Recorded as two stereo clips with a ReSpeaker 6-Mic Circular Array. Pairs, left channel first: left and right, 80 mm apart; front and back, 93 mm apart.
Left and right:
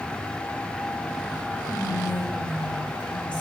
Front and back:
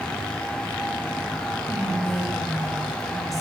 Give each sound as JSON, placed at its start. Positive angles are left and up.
{"t": 1.7, "sound": "whispering", "azimuth_deg": 90, "distance_m": 3.5}